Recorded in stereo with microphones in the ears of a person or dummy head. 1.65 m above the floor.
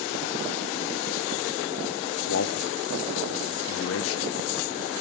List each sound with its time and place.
2.3 s a man speaking: 70° left (ahead or behind), 1.4 m